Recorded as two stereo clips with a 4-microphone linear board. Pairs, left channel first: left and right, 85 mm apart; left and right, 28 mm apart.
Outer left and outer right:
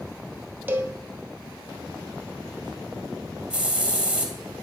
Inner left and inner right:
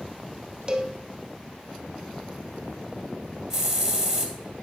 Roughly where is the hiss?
Centre.